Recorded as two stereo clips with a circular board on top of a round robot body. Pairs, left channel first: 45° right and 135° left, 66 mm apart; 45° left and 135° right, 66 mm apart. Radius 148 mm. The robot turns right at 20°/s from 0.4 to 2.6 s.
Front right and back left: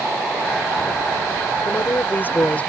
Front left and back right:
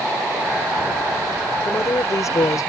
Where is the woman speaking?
Straight ahead; by 2.7 s 20° left.